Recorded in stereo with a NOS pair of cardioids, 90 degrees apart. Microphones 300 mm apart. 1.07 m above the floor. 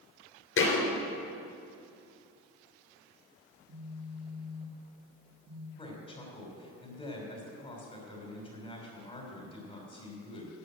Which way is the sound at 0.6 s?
45° left.